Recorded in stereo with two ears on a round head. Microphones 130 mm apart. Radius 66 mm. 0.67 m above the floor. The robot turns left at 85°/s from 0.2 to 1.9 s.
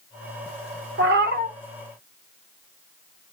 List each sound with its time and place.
1.0 s a cat meowing: 80° right, 0.7 m; by 1.5 s 130° right, 0.7 m